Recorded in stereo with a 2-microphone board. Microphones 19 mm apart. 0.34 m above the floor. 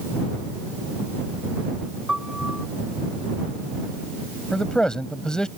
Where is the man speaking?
45° left (ahead or behind).